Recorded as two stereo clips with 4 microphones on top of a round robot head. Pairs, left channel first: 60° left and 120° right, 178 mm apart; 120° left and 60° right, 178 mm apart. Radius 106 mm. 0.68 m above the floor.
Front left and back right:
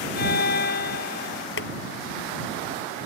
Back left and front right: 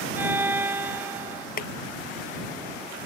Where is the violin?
20° left.